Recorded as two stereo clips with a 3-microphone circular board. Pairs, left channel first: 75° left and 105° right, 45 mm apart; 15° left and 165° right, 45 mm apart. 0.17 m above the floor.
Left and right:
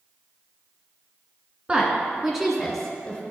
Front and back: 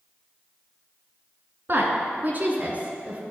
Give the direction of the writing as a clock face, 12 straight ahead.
I don't hear writing.